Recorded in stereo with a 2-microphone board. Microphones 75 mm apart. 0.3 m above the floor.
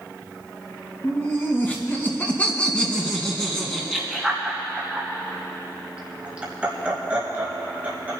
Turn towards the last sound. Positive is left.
turn(degrees=-20)  # may be behind; listen again after turning